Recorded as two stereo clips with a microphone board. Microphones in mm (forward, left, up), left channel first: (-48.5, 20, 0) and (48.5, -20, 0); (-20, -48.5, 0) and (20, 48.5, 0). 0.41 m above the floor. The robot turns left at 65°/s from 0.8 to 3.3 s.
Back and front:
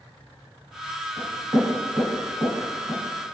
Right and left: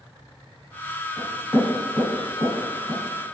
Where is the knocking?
5° right, 1.6 m; by 3.0 s 125° right, 1.6 m.